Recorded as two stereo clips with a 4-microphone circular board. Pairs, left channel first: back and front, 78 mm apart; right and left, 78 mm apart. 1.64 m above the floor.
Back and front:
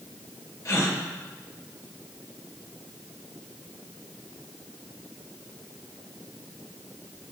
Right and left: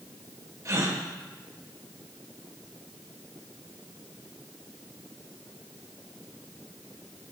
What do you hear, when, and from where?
0.7 s a gasp: 135° left, 1.1 m